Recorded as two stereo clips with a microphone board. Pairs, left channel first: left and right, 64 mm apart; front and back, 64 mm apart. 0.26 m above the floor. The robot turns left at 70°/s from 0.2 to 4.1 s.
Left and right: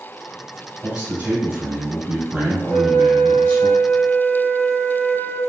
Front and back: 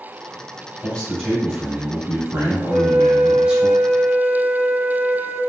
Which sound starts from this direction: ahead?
A flute, at 2.7 s.